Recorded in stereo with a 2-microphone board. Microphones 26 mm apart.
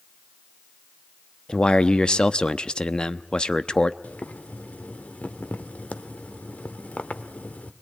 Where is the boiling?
70° left (ahead or behind), 1.4 m.